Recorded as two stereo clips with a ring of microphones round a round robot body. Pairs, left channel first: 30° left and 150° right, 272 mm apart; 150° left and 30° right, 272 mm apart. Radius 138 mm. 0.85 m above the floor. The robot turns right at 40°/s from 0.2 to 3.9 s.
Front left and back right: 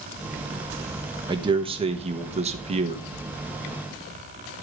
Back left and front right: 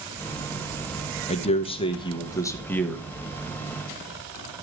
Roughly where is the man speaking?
Behind.